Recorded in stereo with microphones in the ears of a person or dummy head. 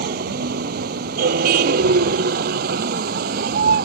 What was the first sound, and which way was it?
A vehicle, 55° right (ahead or behind).